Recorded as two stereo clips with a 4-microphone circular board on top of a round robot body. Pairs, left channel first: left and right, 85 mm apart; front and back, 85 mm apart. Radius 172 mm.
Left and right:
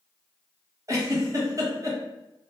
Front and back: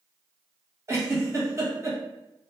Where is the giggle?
135° right, 1.2 m.